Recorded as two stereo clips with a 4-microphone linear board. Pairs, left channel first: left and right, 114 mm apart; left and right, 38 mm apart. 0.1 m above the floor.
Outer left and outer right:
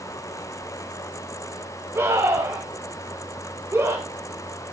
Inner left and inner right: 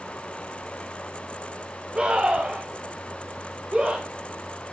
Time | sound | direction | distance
1.9 | a scream | 20° right (ahead or behind) | 9 m